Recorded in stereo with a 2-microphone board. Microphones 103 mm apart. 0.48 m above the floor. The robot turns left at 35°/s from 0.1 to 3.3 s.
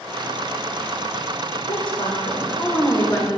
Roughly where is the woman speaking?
Left.